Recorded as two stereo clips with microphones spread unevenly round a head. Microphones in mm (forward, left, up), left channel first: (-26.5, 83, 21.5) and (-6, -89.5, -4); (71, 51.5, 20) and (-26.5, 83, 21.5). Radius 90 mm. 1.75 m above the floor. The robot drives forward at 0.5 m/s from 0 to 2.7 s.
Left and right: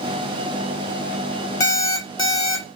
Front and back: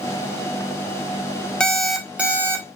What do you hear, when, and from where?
1.6 s an alarm clock: 60° left, 0.9 m; by 2.8 s 130° left, 0.9 m